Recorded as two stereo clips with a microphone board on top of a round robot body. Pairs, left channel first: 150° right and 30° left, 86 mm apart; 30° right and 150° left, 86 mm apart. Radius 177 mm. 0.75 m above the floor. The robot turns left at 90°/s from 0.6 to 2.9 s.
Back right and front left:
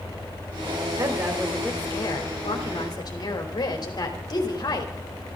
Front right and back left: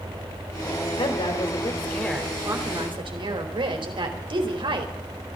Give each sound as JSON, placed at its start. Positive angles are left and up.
{"t": 1.0, "sound": "a woman speaking", "azimuth_deg": -15, "distance_m": 3.5}